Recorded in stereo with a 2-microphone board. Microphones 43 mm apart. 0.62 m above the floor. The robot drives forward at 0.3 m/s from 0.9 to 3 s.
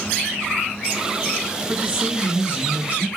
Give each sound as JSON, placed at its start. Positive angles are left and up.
{"t": 1.7, "sound": "a man speaking", "side_deg": -30, "distance_m": 3.5}